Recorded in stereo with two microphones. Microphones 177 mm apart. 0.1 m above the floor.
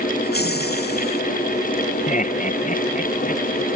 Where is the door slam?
I don't hear a door slam.